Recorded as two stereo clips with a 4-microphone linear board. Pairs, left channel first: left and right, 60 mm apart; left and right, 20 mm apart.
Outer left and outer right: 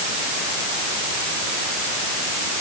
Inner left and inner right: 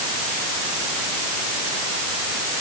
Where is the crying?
No crying in this recording.